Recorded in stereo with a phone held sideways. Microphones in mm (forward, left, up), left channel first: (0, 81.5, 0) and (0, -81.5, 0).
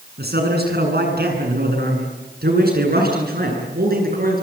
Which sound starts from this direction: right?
A man speaking, at 0.2 s.